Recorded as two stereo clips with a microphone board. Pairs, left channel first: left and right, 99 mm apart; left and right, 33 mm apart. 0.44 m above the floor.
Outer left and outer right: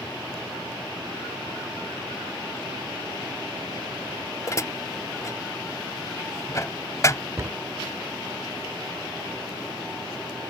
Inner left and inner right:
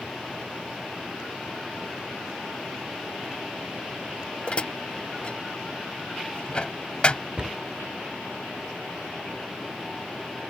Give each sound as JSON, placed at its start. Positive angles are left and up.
{"t": 4.5, "sound": "dishes clattering", "side_deg": 35}
{"t": 7.4, "sound": "a cupboard door", "side_deg": -35}